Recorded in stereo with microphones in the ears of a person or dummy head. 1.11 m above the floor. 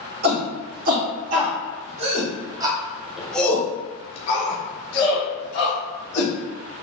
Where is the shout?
50° right (ahead or behind), 1.9 m; by 6.3 s 70° left (ahead or behind), 1.6 m.